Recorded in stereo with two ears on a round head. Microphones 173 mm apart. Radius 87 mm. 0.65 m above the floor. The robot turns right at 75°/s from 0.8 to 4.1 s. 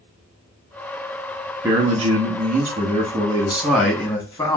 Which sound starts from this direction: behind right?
A man speaking, at 1.6 s.